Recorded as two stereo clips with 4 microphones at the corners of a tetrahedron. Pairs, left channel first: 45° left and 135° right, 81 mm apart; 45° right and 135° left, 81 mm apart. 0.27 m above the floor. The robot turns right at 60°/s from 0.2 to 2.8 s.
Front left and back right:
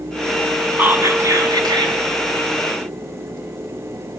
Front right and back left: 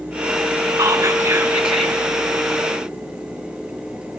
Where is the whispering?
160° left, 3 m; by 2.0 s 125° right, 3 m.